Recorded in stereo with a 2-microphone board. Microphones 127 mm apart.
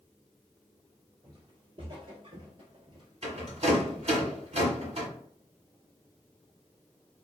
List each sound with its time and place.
1.2 s footsteps: 35° right (ahead or behind), 1.4 m
3.2 s a rattle: 60° right (ahead or behind), 1.3 m